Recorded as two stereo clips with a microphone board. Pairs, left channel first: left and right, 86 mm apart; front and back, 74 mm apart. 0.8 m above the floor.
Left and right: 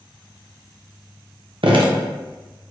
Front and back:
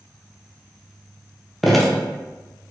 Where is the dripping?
90° right, 0.5 m.